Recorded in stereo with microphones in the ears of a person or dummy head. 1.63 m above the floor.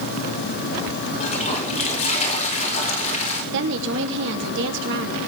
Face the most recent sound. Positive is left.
turn(degrees=-70)  # may be behind; listen again after turning